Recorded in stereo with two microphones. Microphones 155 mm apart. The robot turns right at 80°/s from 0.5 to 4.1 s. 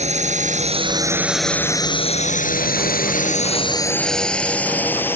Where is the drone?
45° right (ahead or behind); by 5.2 s 15° left (ahead or behind).